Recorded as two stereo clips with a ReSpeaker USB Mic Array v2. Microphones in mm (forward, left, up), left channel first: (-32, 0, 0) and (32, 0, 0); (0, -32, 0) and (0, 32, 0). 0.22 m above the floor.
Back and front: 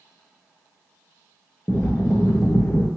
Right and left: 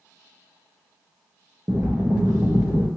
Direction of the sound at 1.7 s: 135° left.